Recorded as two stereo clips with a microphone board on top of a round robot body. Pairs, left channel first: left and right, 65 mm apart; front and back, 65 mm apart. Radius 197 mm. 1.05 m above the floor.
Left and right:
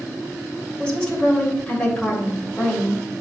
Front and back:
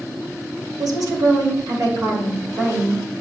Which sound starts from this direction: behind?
A woman speaking, at 0.8 s.